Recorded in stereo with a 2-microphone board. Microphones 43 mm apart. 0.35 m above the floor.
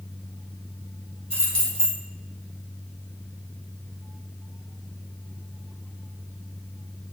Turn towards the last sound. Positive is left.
turn(degrees=20)  # may be behind; listen again after turning